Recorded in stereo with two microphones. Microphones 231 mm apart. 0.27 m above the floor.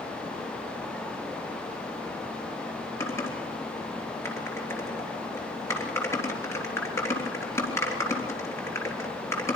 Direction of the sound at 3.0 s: 10° left (ahead or behind).